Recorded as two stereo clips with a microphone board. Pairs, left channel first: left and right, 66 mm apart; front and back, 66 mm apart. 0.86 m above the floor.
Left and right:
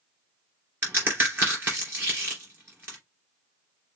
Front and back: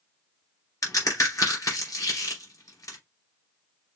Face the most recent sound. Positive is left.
turn(degrees=-35)